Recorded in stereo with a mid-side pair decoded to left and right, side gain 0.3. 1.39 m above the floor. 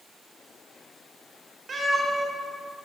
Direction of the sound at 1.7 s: 60° right.